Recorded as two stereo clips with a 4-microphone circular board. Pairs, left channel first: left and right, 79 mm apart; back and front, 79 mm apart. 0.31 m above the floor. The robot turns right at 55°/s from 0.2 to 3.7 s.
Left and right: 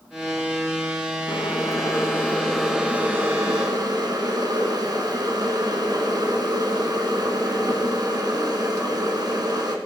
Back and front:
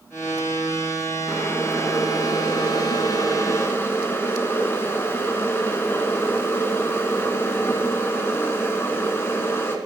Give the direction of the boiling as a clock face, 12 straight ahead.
8 o'clock.